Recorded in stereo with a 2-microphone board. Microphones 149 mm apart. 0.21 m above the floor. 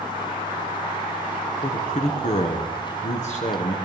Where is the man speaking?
55° left (ahead or behind), 2 m.